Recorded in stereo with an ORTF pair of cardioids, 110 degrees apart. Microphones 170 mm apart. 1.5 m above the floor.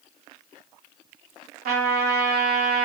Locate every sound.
1.6 s a trumpet: 60° right, 0.8 m